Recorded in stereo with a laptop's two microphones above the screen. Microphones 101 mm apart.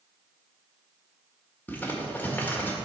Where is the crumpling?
15° left (ahead or behind), 1.7 m.